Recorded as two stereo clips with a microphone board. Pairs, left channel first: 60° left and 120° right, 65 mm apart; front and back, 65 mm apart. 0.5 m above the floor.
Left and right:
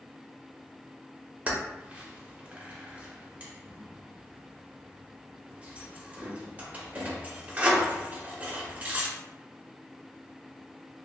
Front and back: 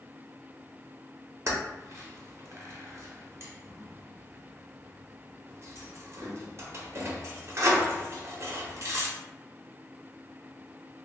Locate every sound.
1.5 s keys jangling: 175° right, 0.6 m